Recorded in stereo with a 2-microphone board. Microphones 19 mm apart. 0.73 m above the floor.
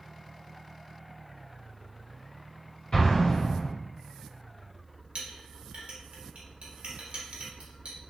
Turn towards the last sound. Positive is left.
turn(degrees=-65)  # may be behind; listen again after turning